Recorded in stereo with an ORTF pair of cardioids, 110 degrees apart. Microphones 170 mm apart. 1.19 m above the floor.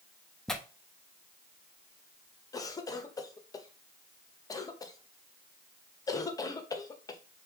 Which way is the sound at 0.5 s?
Straight ahead.